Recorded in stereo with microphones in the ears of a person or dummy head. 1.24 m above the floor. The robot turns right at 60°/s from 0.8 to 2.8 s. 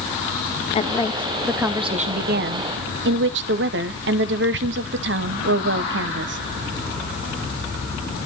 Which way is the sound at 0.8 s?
150° left.